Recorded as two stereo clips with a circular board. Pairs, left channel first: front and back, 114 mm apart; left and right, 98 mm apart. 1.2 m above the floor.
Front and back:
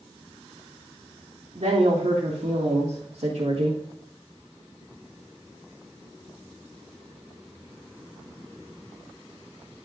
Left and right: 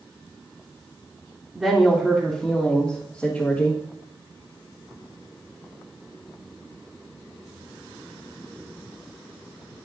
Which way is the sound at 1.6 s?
170° right.